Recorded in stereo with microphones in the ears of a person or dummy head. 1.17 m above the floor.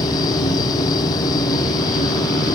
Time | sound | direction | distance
0.0 | a machine running | 25° left (ahead or behind) | ?